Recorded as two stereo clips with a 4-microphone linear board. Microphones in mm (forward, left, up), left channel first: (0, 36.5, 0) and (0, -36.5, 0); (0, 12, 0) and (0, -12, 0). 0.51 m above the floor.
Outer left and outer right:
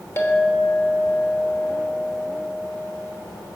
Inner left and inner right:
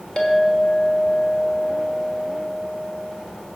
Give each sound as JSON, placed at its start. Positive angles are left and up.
{"t": 0.2, "sound": "a clink", "side_deg": 35, "distance_m": 1.2}